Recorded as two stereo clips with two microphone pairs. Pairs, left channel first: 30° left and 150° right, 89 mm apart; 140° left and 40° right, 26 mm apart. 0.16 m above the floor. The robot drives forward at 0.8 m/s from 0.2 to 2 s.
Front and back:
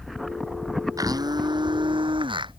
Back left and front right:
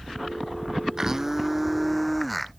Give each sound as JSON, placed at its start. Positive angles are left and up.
{"t": 1.0, "sound": "a blender", "azimuth_deg": -105}